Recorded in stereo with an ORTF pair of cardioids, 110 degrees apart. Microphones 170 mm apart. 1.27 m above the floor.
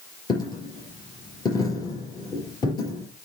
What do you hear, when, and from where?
0.3 s a dropped coin: 25° left, 5 m